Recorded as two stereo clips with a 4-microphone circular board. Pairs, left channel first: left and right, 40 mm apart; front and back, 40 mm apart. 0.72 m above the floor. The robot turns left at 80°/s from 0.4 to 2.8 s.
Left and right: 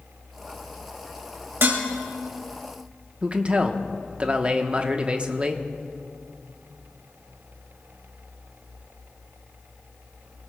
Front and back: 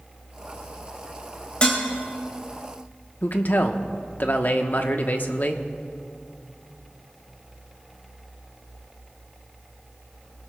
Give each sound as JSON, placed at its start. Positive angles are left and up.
{"t": 1.6, "sound": "dishes clattering", "azimuth_deg": -60, "distance_m": 2.0}
{"t": 3.2, "sound": "a man speaking", "azimuth_deg": -30, "distance_m": 1.0}